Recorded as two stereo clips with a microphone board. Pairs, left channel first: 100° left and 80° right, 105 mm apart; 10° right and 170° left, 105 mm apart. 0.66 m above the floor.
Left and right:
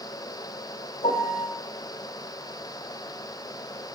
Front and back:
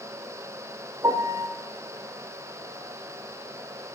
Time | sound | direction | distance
1.0 | a piano | 115° left | 1.8 m